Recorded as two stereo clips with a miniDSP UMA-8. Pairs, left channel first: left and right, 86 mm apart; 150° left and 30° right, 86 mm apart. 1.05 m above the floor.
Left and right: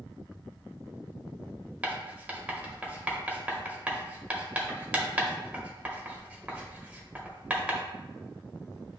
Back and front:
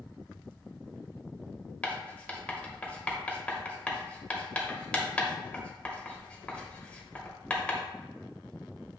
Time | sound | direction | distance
1.8 | writing | 150° right | 0.8 m